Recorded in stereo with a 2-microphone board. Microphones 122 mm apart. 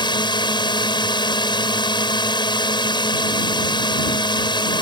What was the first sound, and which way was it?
A drone, 40° left (ahead or behind).